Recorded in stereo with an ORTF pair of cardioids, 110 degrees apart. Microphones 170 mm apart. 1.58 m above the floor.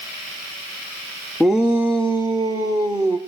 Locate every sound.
1.4 s a shout: straight ahead, 0.5 m; by 3.2 s 25° right, 1.5 m